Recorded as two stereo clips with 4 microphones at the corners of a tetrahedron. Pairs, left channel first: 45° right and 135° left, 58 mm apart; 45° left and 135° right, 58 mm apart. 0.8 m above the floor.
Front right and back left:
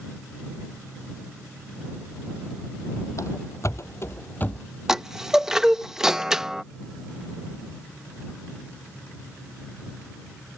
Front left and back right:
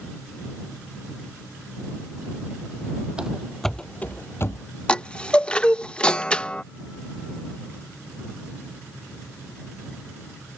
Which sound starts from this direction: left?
A chime, at 4.9 s.